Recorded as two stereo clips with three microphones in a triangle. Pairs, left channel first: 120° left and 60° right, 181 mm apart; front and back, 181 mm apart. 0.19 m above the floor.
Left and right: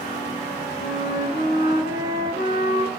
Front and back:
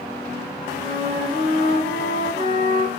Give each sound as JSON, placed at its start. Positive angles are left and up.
{"t": 0.8, "sound": "a flute", "azimuth_deg": 150, "distance_m": 4.0}